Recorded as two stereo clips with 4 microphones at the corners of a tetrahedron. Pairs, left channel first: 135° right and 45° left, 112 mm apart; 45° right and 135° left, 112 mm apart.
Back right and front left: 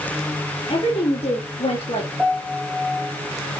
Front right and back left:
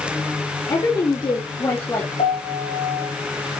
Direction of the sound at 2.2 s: 35° right.